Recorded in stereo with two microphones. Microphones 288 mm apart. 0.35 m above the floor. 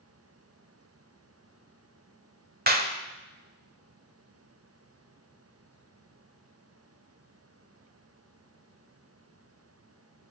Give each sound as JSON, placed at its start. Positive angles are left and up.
{"t": 2.7, "sound": "a clap", "side_deg": -35, "distance_m": 1.2}